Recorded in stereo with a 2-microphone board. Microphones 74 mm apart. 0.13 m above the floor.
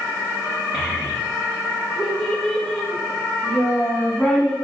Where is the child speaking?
15° right (ahead or behind), 4.5 m; by 4.5 s 5° left (ahead or behind), 7 m.